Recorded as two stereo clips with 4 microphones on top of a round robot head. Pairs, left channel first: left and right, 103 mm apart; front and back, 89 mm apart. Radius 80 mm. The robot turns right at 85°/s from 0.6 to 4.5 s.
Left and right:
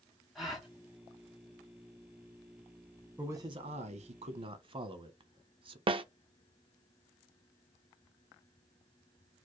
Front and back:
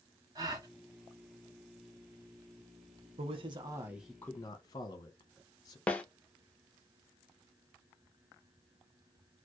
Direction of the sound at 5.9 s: 75° right.